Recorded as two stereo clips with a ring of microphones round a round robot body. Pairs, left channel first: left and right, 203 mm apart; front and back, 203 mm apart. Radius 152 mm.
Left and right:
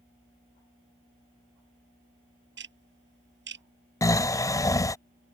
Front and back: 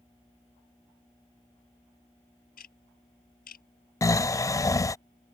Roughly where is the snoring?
Ahead left.